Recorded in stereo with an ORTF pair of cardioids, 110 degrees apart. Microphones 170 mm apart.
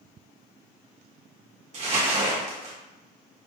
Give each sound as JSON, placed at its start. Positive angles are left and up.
{"t": 1.7, "sound": "crumpling", "azimuth_deg": -45, "distance_m": 1.1}